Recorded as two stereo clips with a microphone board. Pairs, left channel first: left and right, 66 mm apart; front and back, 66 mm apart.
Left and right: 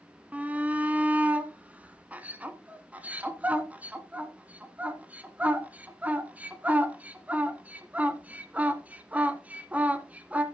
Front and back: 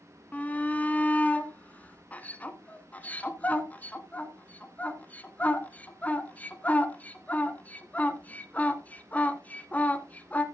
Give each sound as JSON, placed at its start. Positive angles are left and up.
{"t": 0.3, "sound": "a shout", "azimuth_deg": -45, "distance_m": 1.2}